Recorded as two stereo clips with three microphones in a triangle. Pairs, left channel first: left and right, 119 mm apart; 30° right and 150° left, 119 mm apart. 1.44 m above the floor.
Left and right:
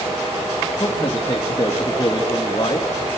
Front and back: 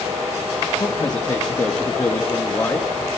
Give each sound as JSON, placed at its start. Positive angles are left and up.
{"t": 0.8, "sound": "a man speaking", "azimuth_deg": 30, "distance_m": 2.5}